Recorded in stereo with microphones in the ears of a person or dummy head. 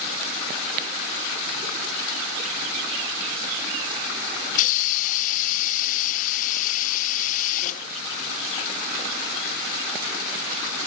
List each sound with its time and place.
4.5 s a hiss: 45° left (ahead or behind)